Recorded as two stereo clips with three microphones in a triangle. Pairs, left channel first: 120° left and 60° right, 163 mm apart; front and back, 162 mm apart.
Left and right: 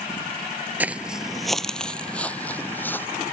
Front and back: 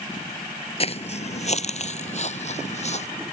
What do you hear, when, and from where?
0.8 s footsteps: 15° left; by 3.1 s 45° left